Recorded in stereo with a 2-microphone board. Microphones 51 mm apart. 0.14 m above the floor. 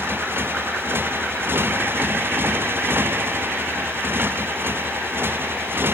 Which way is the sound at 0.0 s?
45° right (ahead or behind).